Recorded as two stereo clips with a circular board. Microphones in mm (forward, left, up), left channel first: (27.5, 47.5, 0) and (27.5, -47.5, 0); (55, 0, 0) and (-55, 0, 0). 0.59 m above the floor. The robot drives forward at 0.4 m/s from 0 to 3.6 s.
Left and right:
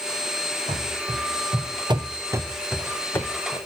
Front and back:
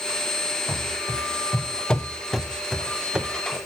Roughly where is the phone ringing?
No phone ringing in this recording.